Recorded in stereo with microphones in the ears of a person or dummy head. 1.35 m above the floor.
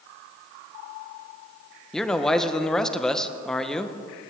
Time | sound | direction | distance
1.9 | a man speaking | 5° left (ahead or behind) | 0.7 m